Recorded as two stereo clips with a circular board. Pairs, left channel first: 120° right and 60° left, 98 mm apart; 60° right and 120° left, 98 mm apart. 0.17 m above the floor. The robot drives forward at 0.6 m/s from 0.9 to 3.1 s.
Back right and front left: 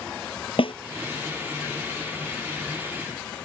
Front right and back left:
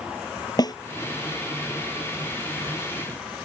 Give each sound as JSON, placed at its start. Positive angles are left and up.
{"t": 0.6, "sound": "a snare drum", "azimuth_deg": -105}